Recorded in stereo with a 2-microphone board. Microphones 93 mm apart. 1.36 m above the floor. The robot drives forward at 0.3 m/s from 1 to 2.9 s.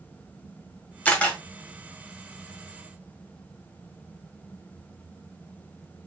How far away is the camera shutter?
About 1.2 m.